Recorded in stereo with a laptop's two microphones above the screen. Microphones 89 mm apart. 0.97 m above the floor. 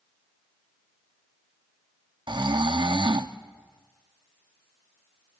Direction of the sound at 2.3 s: 60° right (ahead or behind).